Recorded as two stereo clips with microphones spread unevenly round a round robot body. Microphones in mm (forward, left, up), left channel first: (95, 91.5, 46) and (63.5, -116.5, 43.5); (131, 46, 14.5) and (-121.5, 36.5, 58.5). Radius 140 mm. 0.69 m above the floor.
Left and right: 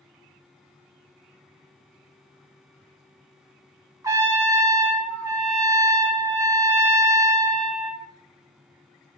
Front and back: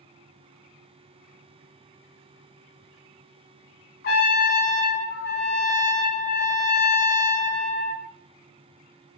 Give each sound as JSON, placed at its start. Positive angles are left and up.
{"t": 4.0, "sound": "a trumpet", "azimuth_deg": -35, "distance_m": 0.6}